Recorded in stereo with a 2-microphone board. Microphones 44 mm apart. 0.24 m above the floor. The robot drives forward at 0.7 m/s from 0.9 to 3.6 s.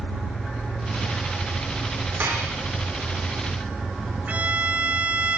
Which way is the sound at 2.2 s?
55° right (ahead or behind).